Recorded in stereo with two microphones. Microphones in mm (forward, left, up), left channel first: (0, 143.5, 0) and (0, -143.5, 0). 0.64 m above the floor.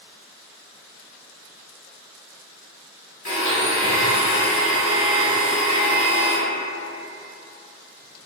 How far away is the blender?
About 1.1 m.